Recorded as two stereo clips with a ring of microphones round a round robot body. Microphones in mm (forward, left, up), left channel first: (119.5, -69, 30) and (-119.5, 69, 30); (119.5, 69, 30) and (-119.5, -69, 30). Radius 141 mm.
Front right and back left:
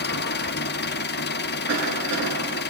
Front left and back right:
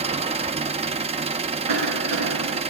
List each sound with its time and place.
0.0 s an engine running: 80° right, 0.8 m
1.7 s a cough: 160° right, 9 m